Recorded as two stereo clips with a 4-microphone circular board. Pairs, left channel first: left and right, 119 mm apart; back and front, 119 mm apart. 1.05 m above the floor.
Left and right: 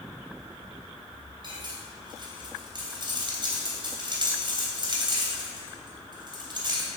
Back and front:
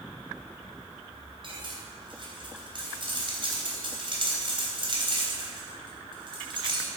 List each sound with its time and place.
1.4 s cutlery clinking: 40° right, 3 m